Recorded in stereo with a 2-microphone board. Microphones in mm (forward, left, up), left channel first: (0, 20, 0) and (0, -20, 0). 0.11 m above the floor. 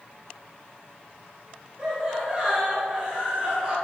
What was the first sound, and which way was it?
Laughter, 30° right (ahead or behind).